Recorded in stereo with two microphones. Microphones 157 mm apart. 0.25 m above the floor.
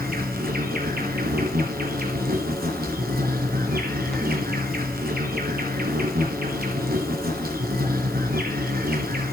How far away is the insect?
About 2 m.